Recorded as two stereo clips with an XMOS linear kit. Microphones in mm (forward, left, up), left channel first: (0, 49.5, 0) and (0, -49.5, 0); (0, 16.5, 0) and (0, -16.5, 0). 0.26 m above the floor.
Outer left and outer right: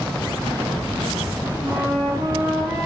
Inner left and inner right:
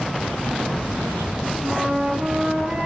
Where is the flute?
40° right (ahead or behind), 1.6 m.